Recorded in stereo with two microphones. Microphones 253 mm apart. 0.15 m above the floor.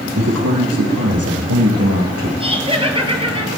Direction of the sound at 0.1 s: 80° right.